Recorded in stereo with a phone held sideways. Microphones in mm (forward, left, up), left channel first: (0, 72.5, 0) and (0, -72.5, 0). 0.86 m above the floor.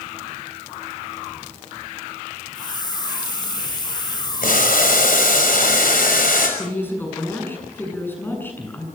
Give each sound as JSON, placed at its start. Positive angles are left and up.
{"t": 2.5, "sound": "a hiss", "side_deg": 30, "distance_m": 2.0}
{"t": 4.4, "sound": "boiling", "side_deg": 80, "distance_m": 5.5}
{"t": 6.6, "sound": "a woman speaking", "side_deg": 15, "distance_m": 7.5}